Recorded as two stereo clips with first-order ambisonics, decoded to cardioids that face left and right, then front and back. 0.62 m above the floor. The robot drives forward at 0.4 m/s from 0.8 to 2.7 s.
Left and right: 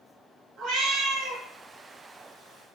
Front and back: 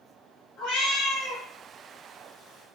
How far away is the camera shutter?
No camera shutter in this recording.